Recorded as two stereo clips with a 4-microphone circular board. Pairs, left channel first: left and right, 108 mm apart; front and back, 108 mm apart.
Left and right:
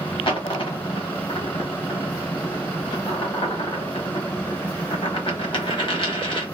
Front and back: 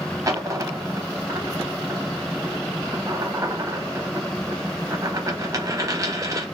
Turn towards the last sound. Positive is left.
turn(degrees=125)